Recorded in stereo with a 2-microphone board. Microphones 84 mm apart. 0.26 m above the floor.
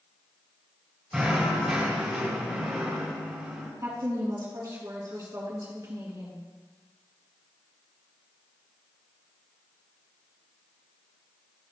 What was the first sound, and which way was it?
Knocking, 10° right (ahead or behind).